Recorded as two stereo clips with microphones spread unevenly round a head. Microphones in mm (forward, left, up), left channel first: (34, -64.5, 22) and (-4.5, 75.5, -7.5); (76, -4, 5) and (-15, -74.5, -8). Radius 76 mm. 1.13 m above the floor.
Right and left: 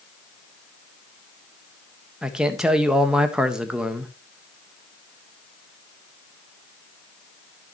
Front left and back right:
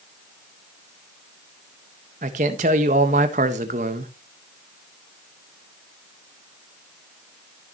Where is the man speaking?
170° right, 1.3 m.